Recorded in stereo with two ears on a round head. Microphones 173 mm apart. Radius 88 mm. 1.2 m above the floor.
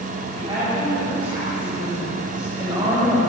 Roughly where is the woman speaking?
Right.